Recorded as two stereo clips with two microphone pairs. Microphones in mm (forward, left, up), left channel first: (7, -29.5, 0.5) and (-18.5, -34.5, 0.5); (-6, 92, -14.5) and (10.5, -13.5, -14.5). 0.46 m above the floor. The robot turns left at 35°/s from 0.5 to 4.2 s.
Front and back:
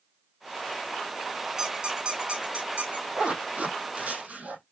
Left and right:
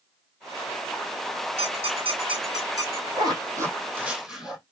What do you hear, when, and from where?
1.6 s a squeak: 95° right, 3.5 m; by 3.1 s 145° right, 3.5 m
3.2 s a zipper: 130° right, 3 m; by 4.6 s 165° right, 3 m